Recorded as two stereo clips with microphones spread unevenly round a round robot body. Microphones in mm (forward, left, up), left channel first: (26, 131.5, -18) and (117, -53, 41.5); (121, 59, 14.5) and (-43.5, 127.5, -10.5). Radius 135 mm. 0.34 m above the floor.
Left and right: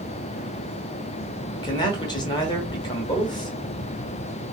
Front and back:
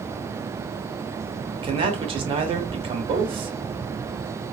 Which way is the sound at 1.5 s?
140° left.